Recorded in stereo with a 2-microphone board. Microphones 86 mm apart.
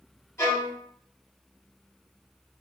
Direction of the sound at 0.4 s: 35° left (ahead or behind).